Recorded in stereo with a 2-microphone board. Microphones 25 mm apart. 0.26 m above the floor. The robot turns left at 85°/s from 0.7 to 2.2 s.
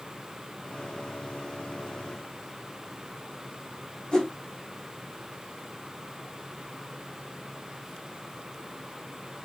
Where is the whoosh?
25° left (ahead or behind), 3 m.